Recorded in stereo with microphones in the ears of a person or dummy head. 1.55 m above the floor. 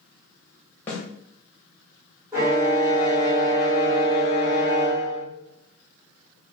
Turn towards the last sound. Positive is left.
turn(degrees=-15)  # may be behind; listen again after turning